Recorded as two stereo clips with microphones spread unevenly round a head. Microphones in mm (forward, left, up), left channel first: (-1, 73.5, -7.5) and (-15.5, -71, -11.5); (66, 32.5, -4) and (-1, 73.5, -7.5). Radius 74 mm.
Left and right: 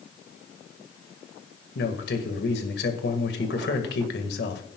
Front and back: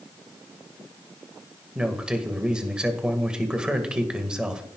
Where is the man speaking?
70° left, 2.0 m.